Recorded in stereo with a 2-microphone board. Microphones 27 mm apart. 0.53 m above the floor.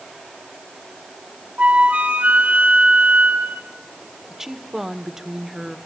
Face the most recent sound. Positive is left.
turn(degrees=-15)  # may be behind; listen again after turning